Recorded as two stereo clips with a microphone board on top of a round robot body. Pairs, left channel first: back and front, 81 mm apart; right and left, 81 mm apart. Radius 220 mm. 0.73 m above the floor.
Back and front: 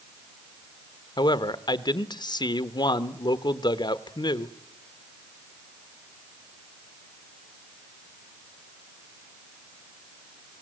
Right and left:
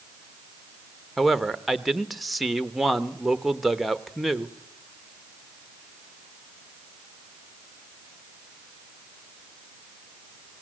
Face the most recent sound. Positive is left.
turn(degrees=180)